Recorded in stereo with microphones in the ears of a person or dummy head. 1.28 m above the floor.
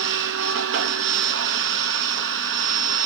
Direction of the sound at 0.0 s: 65° right (ahead or behind).